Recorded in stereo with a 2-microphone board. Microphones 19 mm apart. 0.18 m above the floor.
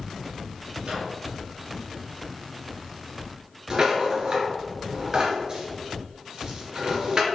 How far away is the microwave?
About 3 m.